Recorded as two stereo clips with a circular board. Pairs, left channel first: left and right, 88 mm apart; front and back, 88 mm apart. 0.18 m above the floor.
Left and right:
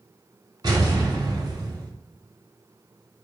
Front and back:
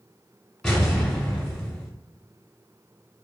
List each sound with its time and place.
0.6 s an explosion: 85° right, 1.2 m